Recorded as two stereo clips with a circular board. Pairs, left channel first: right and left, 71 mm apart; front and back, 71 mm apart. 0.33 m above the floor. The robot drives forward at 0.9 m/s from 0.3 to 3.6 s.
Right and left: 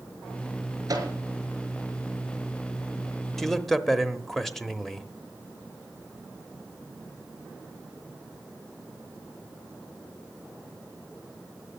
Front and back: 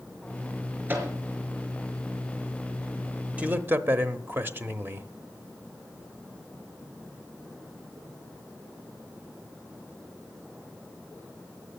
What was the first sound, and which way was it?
A microwave, 120° left.